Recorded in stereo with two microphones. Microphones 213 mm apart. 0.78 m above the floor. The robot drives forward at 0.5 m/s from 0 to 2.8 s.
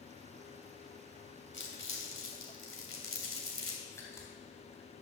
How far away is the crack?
About 3 m.